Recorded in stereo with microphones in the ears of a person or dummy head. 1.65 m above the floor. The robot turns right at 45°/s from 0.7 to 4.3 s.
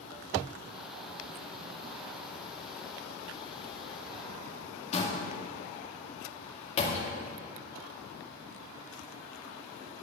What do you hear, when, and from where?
4.9 s a door slam: 45° left (ahead or behind), 2.0 m